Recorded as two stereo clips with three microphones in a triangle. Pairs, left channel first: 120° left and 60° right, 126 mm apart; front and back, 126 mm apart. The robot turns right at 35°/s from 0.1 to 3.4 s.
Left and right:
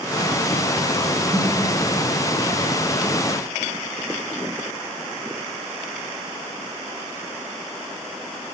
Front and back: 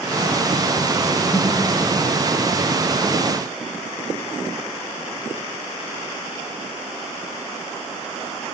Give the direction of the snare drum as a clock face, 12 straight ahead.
12 o'clock.